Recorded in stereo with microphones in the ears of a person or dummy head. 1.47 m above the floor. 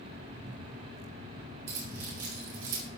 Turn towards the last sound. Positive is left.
turn(degrees=-70)  # may be behind; listen again after turning